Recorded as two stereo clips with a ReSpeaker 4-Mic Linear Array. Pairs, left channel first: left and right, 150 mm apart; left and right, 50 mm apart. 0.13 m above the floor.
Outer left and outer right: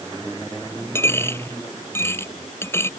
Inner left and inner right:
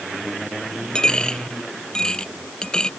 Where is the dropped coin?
15° left (ahead or behind).